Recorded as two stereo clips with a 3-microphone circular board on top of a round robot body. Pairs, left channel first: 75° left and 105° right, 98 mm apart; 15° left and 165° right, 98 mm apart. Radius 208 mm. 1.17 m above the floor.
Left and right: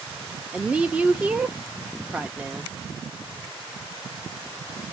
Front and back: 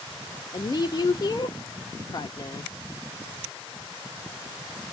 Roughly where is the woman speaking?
Ahead right.